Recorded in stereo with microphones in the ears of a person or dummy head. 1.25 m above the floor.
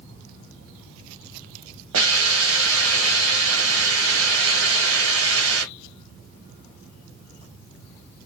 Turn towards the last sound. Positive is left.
turn(degrees=-75)  # may be behind; listen again after turning